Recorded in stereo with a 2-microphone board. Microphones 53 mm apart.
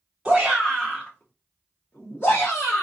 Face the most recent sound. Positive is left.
turn(degrees=50)  # may be behind; listen again after turning